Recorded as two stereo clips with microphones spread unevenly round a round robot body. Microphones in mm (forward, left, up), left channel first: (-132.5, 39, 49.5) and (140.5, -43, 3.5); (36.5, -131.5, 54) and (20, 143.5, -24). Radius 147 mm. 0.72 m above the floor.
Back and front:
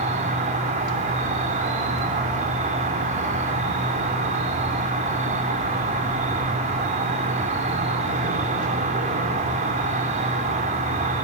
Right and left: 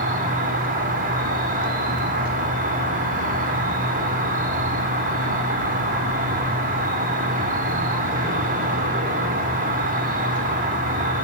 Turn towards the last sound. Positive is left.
turn(degrees=45)